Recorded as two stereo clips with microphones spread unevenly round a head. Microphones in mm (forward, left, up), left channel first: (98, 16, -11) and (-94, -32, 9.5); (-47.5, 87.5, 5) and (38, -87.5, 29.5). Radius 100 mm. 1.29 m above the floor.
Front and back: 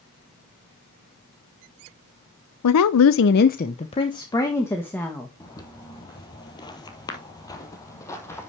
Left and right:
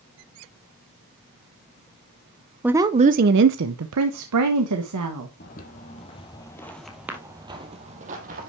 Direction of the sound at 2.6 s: 20° left.